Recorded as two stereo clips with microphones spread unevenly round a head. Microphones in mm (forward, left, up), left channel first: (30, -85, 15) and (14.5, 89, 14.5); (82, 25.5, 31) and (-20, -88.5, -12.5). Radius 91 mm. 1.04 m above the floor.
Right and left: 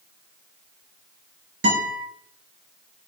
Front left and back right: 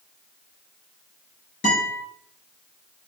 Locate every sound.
1.6 s a guitar: 100° left, 6 m